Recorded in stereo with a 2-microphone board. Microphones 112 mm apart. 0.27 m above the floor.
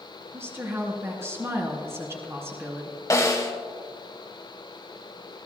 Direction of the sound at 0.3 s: 25° right (ahead or behind).